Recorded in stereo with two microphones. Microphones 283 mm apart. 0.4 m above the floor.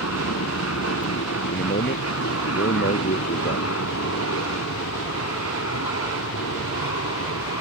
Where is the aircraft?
60° left (ahead or behind).